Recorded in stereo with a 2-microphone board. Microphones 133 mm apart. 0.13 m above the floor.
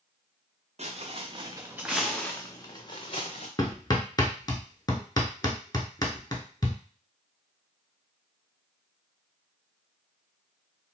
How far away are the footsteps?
About 1.0 m.